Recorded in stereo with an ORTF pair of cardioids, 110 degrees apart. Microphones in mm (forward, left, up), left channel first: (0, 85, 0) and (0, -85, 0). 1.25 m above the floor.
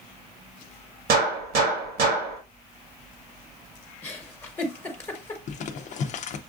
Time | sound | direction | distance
1.1 | a gunshot | 65° right | 1.7 m
4.0 | a giggle | 15° left | 1.2 m
5.5 | crumpling | 45° left | 0.7 m